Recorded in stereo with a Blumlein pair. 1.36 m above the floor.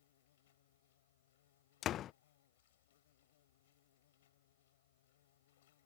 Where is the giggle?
I don't hear a giggle.